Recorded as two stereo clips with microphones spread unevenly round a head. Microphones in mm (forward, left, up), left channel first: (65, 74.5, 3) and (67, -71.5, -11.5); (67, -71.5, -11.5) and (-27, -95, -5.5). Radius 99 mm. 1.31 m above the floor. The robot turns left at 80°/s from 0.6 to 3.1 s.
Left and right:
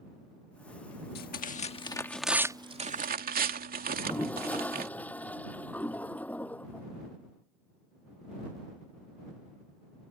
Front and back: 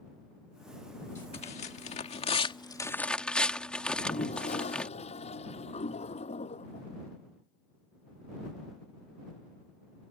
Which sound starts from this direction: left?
Tearing paper, at 1.1 s.